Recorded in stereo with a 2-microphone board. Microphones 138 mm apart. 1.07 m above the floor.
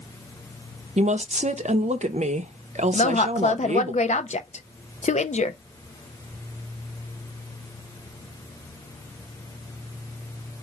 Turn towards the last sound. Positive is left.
turn(degrees=55)  # may be behind; listen again after turning